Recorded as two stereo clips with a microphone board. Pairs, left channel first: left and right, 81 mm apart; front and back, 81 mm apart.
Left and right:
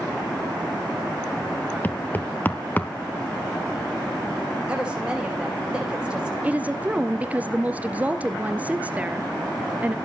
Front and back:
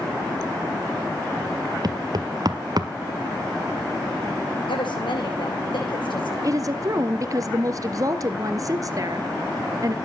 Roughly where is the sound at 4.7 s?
Ahead.